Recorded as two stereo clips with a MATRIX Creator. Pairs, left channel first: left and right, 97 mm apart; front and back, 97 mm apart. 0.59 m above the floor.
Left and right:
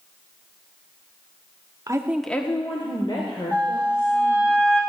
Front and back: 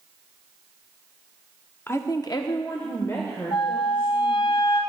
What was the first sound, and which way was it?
A woman speaking, 55° right.